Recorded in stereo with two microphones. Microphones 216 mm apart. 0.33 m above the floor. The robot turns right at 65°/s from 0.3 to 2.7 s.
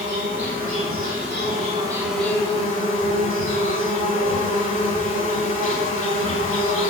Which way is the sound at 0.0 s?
120° right.